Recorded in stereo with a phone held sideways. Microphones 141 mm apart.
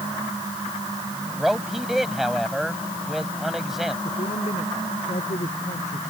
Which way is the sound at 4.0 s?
60° left (ahead or behind).